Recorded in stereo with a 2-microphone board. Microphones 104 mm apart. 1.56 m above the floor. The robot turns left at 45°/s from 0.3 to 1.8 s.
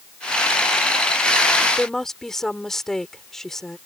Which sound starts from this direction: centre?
A woman speaking, at 1.8 s.